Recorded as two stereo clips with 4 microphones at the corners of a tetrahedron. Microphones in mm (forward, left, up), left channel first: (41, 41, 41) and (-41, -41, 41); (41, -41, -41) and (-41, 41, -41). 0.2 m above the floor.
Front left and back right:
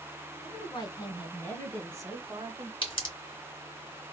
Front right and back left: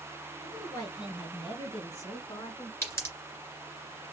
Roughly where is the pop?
Ahead.